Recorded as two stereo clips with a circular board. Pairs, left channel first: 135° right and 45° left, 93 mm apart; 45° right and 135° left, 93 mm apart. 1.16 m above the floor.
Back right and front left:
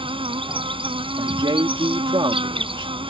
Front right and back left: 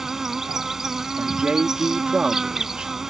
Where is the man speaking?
55° left.